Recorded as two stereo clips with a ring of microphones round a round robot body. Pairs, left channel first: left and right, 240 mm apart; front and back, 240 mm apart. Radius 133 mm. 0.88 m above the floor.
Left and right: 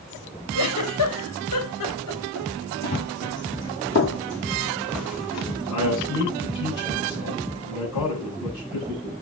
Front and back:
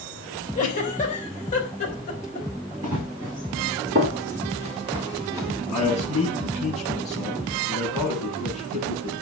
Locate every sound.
0.6 s a giggle: 65° left, 4 m
2.8 s running footsteps: 140° left, 3.5 m; by 5.6 s 95° left, 3 m
5.7 s a man speaking: 90° left, 8.5 m